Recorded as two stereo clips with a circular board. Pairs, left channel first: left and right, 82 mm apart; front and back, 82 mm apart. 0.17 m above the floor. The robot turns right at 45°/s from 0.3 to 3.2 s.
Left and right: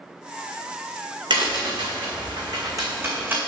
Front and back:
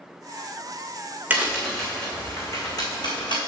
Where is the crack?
110° right, 2 m; by 3.4 s 25° right, 2 m.